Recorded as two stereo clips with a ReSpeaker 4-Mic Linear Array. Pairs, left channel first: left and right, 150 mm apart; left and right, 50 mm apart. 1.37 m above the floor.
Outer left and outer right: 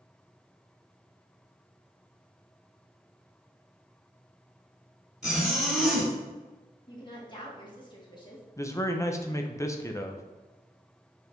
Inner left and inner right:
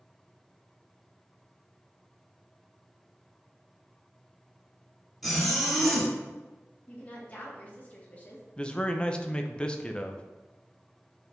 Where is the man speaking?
20° left (ahead or behind), 0.7 m.